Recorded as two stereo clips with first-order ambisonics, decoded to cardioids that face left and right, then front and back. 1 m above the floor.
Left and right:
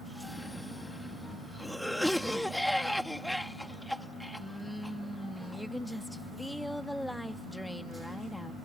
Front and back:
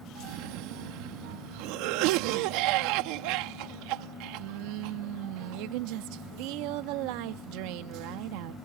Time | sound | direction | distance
0.1 | a cough | 175° left | ?